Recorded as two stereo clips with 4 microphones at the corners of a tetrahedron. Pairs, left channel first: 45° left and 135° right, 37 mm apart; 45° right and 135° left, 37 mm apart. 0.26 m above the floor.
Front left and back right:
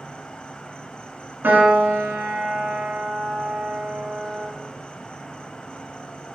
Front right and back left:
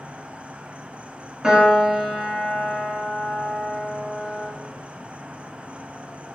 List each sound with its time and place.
0.0 s an insect: 100° left, 0.7 m
1.4 s a piano: 155° right, 2.5 m